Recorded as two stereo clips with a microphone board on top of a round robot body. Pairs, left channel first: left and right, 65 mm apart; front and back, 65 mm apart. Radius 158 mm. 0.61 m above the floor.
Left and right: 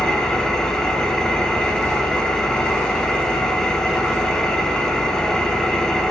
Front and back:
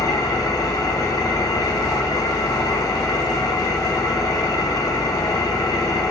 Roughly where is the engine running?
Ahead.